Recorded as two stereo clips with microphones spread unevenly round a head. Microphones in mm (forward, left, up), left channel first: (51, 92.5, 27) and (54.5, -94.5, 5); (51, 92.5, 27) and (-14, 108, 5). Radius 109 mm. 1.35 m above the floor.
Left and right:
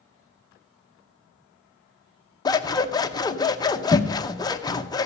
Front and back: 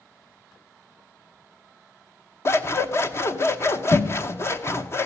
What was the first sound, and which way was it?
Scissors, 25° left.